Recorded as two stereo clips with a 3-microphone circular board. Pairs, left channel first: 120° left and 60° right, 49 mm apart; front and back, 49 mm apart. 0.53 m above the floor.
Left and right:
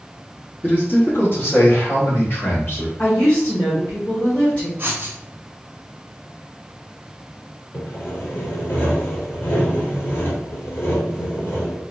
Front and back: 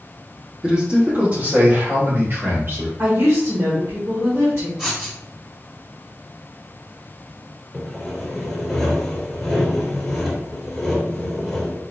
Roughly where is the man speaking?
Behind left.